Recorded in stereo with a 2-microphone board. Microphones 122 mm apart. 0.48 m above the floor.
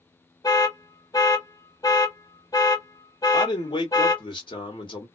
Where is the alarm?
30° left (ahead or behind), 0.7 m.